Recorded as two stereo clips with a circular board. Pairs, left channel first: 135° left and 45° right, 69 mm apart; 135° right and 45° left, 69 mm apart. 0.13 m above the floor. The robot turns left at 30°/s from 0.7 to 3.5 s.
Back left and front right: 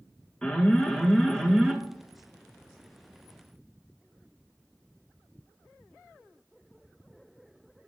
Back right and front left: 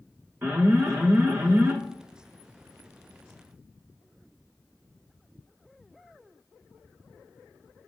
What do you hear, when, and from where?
0.4 s an alarm: 70° left, 0.9 m; by 1.8 s 40° left, 0.9 m